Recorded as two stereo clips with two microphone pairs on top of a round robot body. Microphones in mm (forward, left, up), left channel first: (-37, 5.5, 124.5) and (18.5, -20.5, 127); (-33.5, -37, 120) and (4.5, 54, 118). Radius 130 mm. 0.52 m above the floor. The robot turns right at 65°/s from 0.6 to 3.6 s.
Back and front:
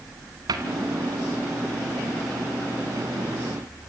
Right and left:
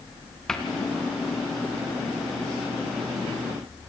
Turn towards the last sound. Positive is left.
turn(degrees=170)